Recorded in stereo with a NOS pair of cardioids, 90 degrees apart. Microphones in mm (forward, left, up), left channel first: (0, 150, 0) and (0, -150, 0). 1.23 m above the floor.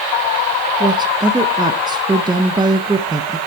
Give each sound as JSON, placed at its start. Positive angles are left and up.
{"t": 0.8, "sound": "a woman speaking", "azimuth_deg": -15, "distance_m": 0.9}